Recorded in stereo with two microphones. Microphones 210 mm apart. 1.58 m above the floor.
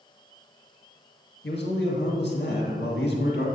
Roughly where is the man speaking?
Left.